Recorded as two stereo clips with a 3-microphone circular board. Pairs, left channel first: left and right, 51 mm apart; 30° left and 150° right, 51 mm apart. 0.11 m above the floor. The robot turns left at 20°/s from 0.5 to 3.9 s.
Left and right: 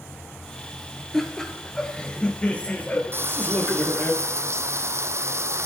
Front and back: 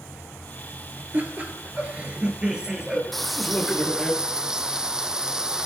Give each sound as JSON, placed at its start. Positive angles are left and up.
{"t": 1.1, "sound": "laughter", "azimuth_deg": 170, "distance_m": 2.5}
{"t": 3.1, "sound": "frying", "azimuth_deg": -55, "distance_m": 0.7}